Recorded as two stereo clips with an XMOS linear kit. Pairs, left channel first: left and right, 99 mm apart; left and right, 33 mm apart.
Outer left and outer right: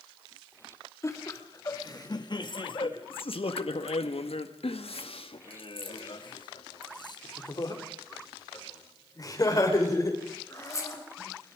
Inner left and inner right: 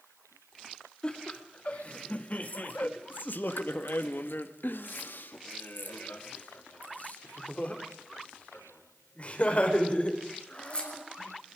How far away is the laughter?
About 2.5 m.